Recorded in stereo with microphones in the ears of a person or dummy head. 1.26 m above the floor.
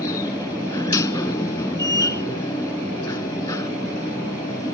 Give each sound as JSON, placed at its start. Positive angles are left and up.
{"t": 0.0, "sound": "a machine running", "side_deg": 20}